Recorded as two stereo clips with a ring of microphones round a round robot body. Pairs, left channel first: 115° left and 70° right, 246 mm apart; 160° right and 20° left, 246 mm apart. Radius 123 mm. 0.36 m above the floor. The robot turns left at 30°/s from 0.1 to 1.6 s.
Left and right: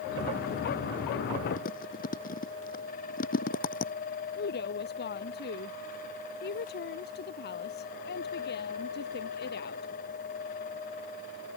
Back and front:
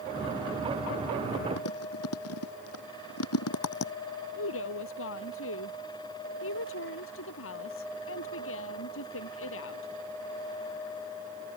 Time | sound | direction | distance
1.6 | chewing | 170° left | ?
4.4 | a woman speaking | 165° left | ?